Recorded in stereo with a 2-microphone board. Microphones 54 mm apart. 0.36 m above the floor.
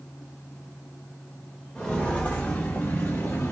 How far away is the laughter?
I don't hear laughter.